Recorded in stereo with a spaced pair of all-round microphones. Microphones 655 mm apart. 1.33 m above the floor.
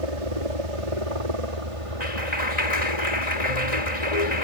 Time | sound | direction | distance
0.0 | a helicopter | 55° right (ahead or behind) | ?
2.0 | a clap | 80° left | ?